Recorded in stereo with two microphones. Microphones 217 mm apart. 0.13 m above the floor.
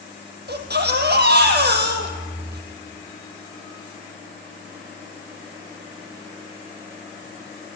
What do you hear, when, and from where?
0.5 s a baby crying: 50° right (ahead or behind), 3 m